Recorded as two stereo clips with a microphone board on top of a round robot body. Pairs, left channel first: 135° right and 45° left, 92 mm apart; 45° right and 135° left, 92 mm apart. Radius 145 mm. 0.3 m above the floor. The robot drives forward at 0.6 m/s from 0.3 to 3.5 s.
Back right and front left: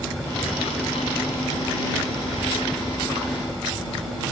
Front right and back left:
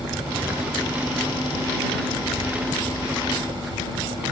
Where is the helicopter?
140° left.